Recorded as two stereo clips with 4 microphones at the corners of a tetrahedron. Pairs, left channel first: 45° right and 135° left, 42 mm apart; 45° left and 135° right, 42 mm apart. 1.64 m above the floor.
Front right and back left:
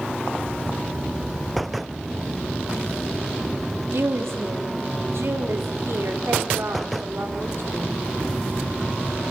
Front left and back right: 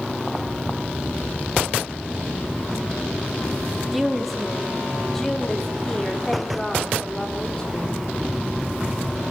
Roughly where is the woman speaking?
Behind left.